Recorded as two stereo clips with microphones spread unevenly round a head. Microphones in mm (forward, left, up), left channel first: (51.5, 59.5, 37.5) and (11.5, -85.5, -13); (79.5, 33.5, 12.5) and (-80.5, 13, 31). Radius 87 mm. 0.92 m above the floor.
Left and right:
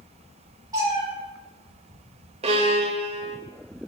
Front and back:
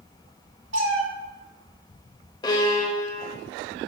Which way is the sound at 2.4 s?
55° right.